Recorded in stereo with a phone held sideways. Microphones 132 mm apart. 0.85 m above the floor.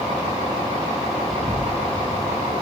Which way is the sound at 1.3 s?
40° right (ahead or behind).